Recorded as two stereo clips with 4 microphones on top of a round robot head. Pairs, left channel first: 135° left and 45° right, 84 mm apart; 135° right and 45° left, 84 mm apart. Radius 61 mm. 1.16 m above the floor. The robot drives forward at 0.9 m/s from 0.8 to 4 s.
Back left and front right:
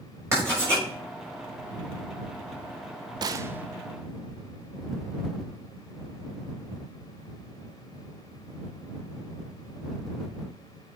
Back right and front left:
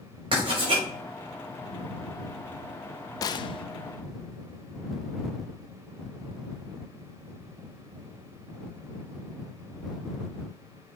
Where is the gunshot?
85° right, 0.6 m; by 3.6 s 120° right, 0.7 m.